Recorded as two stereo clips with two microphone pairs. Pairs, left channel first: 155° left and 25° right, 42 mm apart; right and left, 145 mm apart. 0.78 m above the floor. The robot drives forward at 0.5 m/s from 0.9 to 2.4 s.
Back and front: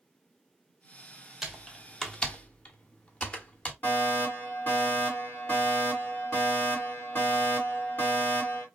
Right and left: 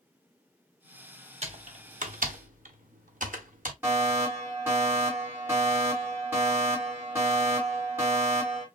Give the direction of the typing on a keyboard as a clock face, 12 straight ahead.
10 o'clock.